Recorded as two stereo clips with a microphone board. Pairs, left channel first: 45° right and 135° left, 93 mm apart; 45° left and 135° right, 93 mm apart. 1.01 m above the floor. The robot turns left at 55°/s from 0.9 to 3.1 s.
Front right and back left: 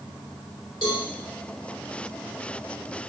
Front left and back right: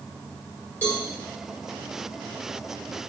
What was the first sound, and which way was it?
A cowbell, 25° right.